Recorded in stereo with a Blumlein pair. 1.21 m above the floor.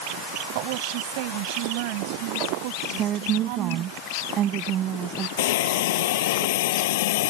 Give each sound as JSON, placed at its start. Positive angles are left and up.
{"t": 0.6, "sound": "a woman speaking", "azimuth_deg": -45}
{"t": 3.0, "sound": "a woman speaking", "azimuth_deg": -30}
{"t": 5.4, "sound": "a hiss", "azimuth_deg": 55}